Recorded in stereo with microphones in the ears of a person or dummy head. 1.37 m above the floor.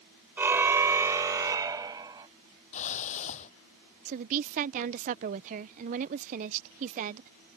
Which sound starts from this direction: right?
A woman speaking, at 4.0 s.